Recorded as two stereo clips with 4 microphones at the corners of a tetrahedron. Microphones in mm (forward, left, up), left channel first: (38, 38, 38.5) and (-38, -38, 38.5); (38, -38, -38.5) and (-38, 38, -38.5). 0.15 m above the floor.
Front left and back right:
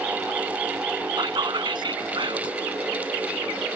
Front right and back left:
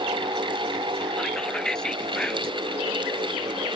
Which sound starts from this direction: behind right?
Whispering, at 1.2 s.